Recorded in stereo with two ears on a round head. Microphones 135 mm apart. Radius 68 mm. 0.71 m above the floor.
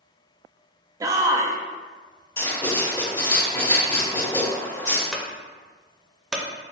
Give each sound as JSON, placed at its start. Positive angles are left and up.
{"t": 1.0, "sound": "a shout", "side_deg": -20, "distance_m": 0.5}
{"t": 2.4, "sound": "writing", "side_deg": 25, "distance_m": 1.9}
{"t": 5.1, "sound": "a clunk", "side_deg": 0, "distance_m": 0.6}